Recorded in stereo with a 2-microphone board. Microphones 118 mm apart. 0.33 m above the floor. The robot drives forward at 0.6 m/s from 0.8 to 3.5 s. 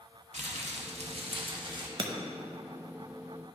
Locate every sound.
0.3 s crumpling: 75° right (ahead or behind), 0.7 m; by 1.9 s 40° right (ahead or behind), 1.1 m
2.0 s breaking glass: 50° right (ahead or behind), 0.6 m; by 2.1 s 45° right (ahead or behind), 0.7 m